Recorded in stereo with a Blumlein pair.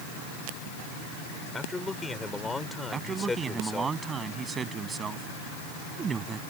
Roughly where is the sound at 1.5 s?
Ahead.